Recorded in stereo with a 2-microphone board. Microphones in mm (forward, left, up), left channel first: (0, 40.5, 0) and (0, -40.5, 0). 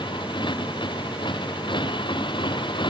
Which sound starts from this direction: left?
A motorcycle, at 0.0 s.